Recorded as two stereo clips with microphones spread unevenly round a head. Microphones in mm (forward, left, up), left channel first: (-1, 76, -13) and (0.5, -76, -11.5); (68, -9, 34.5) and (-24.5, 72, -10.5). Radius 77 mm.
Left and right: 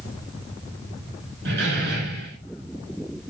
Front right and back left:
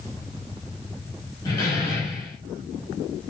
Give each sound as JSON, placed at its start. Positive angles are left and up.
{"t": 1.4, "sound": "a door slam", "azimuth_deg": -105, "distance_m": 6.5}